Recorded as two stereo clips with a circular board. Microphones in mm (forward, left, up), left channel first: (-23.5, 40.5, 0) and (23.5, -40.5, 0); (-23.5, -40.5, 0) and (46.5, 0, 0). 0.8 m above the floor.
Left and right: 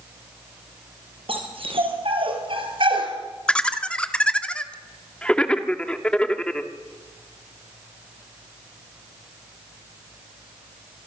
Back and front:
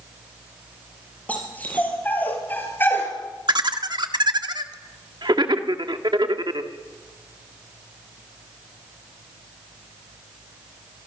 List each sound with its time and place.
1.3 s a dog barking: 80° right, 5 m; by 3.1 s 85° right, 3.5 m
3.5 s laughter: 40° left, 1.6 m